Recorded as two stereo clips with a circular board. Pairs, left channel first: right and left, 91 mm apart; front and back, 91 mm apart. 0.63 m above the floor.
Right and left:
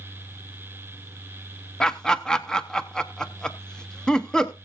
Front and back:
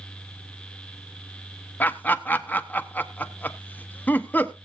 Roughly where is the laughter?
Ahead.